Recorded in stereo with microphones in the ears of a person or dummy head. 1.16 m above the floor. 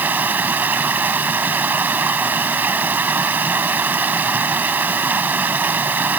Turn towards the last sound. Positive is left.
turn(degrees=-10)  # may be behind; listen again after turning